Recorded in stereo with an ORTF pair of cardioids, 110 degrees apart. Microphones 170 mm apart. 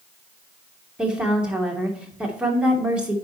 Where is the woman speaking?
5° right, 2.5 m.